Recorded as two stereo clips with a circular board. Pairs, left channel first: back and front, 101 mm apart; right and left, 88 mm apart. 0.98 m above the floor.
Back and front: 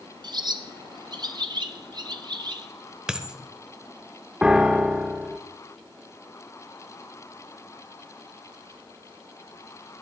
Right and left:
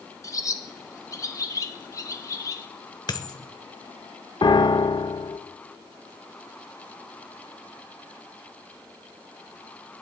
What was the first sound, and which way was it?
A bird, 40° right.